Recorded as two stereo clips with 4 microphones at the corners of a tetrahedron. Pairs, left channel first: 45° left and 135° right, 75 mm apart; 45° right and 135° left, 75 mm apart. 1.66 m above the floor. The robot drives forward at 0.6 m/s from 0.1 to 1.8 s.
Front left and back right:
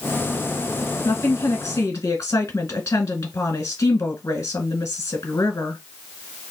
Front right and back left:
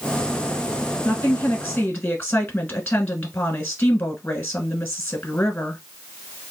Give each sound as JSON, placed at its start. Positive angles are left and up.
{"t": 1.1, "sound": "a woman speaking", "azimuth_deg": 15, "distance_m": 1.6}